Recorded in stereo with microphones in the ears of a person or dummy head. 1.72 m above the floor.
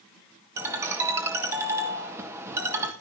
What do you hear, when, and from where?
0.6 s a ringtone: 5° right (ahead or behind), 1.3 m